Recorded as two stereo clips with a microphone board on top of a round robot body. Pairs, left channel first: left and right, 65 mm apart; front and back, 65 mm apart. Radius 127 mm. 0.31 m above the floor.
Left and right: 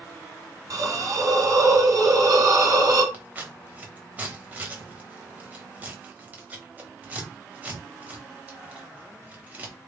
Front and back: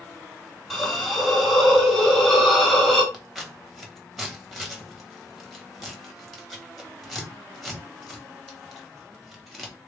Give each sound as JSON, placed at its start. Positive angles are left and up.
{"t": 0.7, "sound": "a hiss", "azimuth_deg": -85, "distance_m": 1.8}
{"t": 3.1, "sound": "scissors", "azimuth_deg": -90, "distance_m": 1.6}